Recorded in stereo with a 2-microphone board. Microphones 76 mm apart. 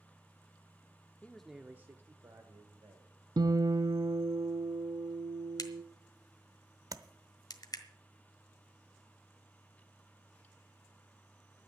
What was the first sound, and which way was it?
A man speaking, 20° left (ahead or behind).